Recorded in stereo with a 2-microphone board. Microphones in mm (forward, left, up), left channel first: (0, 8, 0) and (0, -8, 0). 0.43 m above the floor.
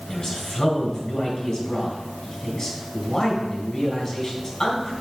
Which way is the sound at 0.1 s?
35° left (ahead or behind).